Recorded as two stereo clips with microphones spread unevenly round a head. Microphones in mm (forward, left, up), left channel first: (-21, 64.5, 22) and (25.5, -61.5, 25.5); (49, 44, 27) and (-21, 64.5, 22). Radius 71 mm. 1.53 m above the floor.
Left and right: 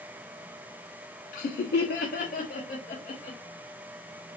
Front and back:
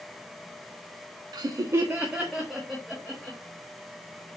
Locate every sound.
1.3 s laughter: 140° left, 0.6 m; by 3.4 s 65° left, 1.6 m